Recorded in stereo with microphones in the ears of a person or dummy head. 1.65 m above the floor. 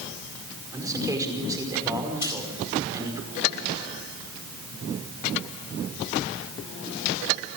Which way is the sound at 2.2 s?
25° left (ahead or behind).